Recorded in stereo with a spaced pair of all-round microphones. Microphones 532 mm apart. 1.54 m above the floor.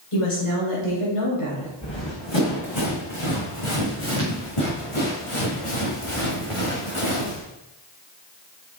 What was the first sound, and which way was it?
A woman speaking, 80° left.